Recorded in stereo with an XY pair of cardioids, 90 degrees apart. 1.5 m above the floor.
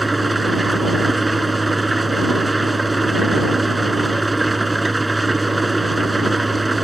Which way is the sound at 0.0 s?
10° right.